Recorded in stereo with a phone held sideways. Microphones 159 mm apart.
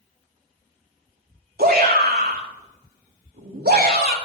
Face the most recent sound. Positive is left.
turn(degrees=-80)